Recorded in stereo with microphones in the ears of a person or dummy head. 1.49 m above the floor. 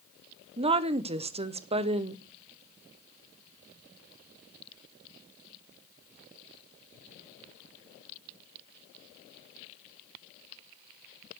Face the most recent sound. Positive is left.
turn(degrees=-30)  # may be behind; listen again after turning